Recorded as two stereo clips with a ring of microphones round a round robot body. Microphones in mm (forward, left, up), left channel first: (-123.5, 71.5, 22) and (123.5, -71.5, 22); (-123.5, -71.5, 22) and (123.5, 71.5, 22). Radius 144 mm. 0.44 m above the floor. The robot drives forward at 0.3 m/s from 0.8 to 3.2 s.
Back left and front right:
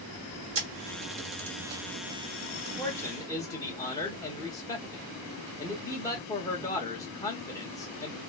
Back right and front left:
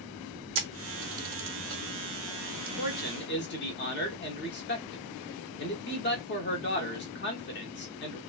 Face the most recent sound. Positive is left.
turn(degrees=-140)